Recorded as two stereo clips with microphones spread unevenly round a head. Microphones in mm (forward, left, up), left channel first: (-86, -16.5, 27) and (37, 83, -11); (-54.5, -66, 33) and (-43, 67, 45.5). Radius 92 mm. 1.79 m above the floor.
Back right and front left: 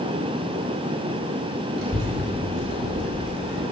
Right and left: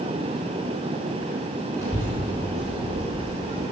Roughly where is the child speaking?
Ahead.